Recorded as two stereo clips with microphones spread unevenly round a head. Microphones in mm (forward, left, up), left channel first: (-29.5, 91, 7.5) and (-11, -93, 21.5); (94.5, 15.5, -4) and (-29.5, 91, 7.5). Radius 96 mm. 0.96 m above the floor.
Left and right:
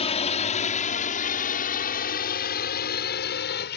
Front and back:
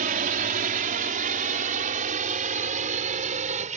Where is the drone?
145° left; by 3.8 s 120° left.